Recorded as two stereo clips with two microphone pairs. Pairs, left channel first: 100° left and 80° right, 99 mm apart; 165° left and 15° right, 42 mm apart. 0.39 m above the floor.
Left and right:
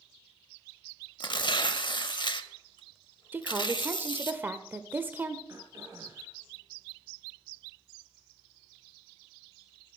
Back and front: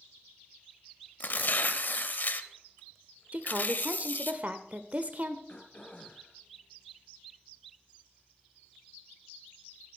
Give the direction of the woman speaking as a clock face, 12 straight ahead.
1 o'clock.